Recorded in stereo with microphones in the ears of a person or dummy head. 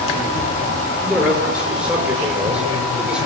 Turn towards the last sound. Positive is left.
turn(degrees=-5)  # may be behind; listen again after turning